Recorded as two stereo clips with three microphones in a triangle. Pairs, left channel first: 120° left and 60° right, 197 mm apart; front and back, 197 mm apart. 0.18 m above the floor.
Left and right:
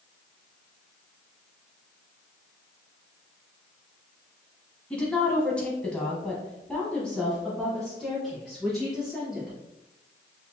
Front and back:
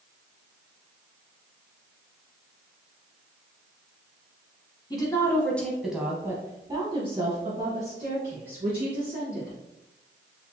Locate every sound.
4.9 s a woman speaking: 40° left, 1.1 m; by 9.6 s 150° right, 2 m